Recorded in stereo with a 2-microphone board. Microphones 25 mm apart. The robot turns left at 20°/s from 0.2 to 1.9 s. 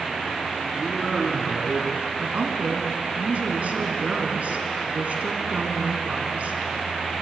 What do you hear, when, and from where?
0.7 s a man speaking: 20° right (ahead or behind), 3 m; by 2.1 s 40° right (ahead or behind), 3 m
2.2 s a woman speaking: 60° right (ahead or behind), 3 m